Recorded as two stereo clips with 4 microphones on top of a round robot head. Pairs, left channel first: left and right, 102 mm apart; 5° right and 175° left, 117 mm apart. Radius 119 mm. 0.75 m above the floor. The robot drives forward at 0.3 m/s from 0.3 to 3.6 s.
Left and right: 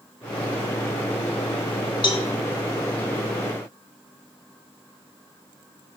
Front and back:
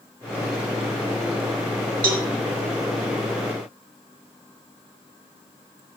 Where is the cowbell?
130° left, 1.4 m.